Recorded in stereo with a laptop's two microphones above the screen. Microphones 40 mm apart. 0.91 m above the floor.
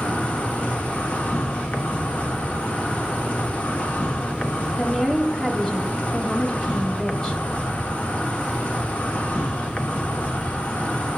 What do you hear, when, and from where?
0.0 s an insect: 35° left (ahead or behind), 0.8 m
4.8 s a woman speaking: 25° left (ahead or behind), 1.8 m